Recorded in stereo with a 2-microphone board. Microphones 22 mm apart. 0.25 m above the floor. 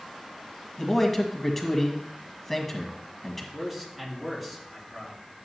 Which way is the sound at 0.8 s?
15° left (ahead or behind).